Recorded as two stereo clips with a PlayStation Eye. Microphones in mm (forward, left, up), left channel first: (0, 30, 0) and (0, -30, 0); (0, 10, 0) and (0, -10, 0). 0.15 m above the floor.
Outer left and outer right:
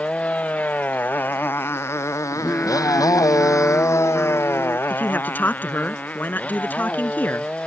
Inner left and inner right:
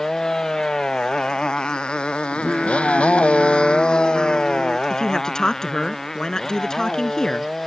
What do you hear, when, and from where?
0.0 s a motorcycle: 20° left (ahead or behind); by 7.7 s 15° left (ahead or behind)
2.3 s singing: 25° left (ahead or behind)
4.9 s a man speaking: 30° left (ahead or behind)